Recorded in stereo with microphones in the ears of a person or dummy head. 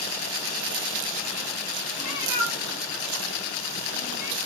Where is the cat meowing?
5° right (ahead or behind), 0.8 m; by 4.4 s 65° right (ahead or behind), 1.2 m.